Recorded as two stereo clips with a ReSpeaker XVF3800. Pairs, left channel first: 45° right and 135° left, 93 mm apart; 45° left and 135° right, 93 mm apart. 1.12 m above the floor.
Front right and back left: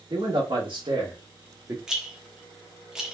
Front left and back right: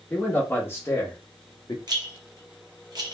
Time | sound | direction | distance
0.1 | a man speaking | 115° left | 1.6 m
1.9 | a rattle | 145° right | 0.8 m